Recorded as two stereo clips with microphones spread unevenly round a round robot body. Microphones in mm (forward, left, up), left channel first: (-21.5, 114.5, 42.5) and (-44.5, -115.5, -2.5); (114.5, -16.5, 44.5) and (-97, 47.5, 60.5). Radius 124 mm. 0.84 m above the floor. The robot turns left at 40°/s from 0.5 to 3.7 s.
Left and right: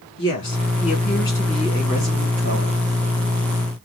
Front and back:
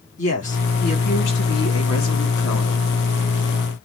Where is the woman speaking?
40° left, 2.5 m; by 2.8 s 55° right, 2.5 m.